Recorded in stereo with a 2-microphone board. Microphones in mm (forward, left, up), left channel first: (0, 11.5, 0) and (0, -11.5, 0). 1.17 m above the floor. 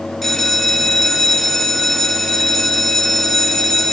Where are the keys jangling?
I don't hear keys jangling.